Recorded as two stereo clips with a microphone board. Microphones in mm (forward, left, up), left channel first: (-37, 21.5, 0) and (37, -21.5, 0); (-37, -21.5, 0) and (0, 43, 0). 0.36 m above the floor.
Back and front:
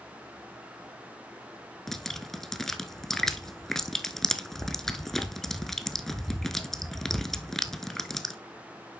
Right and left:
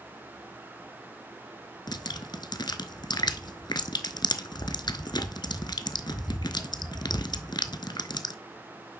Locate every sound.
1.9 s dripping: 125° right, 0.7 m